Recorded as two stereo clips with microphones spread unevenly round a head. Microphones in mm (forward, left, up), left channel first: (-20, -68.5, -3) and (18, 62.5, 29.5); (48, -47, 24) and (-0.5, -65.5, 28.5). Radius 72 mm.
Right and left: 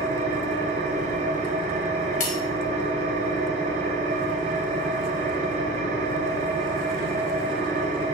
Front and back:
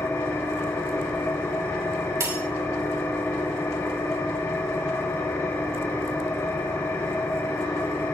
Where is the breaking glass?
145° right, 3.5 m.